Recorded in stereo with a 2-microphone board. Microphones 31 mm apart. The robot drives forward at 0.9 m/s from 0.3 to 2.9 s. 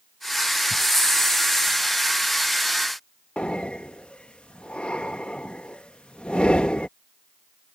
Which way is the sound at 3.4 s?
35° left (ahead or behind).